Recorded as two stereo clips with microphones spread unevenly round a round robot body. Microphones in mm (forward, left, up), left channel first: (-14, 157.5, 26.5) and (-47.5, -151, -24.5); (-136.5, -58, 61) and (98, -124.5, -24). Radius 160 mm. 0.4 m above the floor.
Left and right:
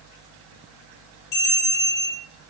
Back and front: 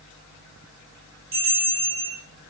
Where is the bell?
45° left, 5.5 m.